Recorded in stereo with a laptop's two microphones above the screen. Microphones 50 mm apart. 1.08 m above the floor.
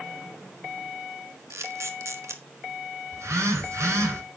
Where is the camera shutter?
70° right (ahead or behind), 1.3 m.